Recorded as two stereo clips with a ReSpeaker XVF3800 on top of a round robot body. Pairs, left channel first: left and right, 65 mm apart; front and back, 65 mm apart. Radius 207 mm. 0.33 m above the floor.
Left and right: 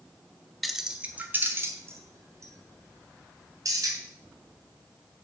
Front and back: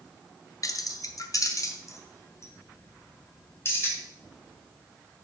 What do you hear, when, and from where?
0.6 s keys jangling: straight ahead, 1.0 m; by 4.0 s 55° right, 3 m